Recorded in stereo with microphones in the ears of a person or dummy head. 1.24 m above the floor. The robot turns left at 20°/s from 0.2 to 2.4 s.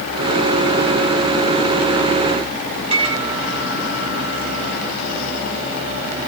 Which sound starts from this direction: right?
A microwave, at 2.9 s.